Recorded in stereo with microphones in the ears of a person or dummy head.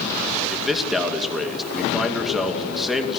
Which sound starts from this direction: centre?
A man speaking, at 0.5 s.